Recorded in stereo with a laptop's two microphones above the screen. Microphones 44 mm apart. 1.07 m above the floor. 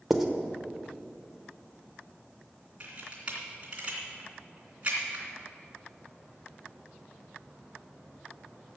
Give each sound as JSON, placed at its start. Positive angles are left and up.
{"t": 0.1, "sound": "writing", "side_deg": -5, "distance_m": 1.0}
{"t": 2.8, "sound": "a camera shutter", "side_deg": -30, "distance_m": 3.0}